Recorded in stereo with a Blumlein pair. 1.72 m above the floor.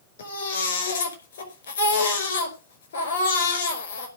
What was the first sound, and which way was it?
A baby crying, 60° left.